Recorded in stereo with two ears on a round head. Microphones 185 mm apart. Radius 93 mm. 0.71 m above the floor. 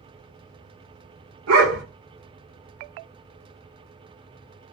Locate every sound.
1.5 s a dog barking: 75° right (ahead or behind), 0.9 m